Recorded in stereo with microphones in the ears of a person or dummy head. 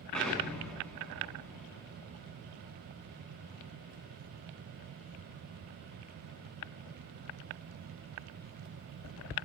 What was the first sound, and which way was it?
An explosion, centre (ahead or behind).